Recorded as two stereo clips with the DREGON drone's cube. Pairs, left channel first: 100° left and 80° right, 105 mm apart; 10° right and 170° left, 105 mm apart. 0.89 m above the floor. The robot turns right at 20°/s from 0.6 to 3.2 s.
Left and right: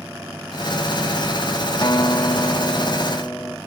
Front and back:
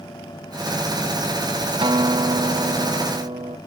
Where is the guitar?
140° left; by 3.6 s 170° left.